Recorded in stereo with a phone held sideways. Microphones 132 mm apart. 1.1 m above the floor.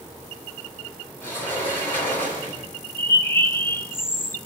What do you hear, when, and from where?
1.2 s a sliding door: 15° left (ahead or behind), 9 m
3.0 s a bird: 20° left (ahead or behind), 0.8 m